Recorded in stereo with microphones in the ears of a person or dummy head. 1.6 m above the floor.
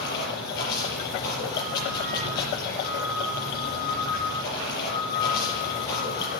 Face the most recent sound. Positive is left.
turn(degrees=60)  # may be behind; listen again after turning